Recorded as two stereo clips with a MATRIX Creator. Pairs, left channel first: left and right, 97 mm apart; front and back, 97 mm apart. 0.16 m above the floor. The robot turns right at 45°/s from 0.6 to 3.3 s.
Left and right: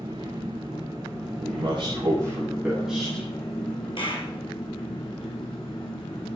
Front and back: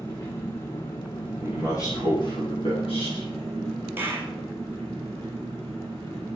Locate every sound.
0.0 s an engine running: 60° right, 5.5 m; by 6.4 s 60° left, 5.5 m
1.4 s a man speaking: 75° right, 6.5 m; by 3.3 s 15° left, 6.5 m
4.0 s a clap: 115° left, 2.5 m